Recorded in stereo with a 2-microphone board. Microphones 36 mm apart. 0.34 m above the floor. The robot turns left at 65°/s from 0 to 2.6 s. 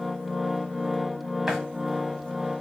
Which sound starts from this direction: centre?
A running tap, at 1.5 s.